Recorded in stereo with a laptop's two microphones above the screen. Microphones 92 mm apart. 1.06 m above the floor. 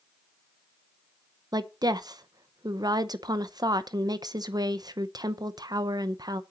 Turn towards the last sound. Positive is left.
turn(degrees=-45)  # may be behind; listen again after turning